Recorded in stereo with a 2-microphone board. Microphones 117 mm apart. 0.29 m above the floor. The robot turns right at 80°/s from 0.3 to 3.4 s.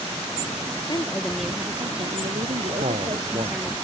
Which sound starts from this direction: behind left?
A woman speaking, at 0.9 s.